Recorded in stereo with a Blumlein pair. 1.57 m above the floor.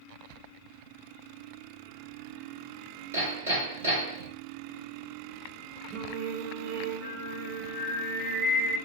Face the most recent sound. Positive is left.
turn(degrees=-40)